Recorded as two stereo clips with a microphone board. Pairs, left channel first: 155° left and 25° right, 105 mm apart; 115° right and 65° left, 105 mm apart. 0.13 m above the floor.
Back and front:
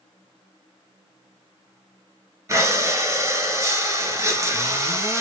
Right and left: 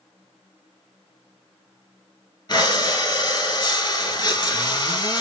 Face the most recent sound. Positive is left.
turn(degrees=-80)